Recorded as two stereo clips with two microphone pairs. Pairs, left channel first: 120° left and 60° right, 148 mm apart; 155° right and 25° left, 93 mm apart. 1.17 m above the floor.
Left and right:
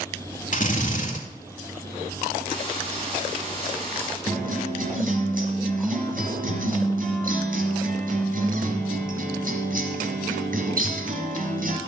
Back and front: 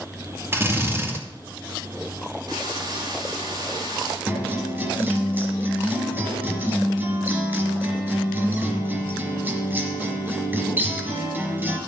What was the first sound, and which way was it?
A drill, 90° left.